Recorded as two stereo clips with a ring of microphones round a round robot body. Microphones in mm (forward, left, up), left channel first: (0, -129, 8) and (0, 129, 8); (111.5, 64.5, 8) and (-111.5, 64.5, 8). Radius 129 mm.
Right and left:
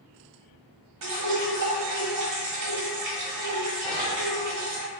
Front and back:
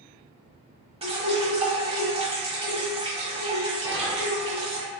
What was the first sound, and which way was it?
Dripping, 115° left.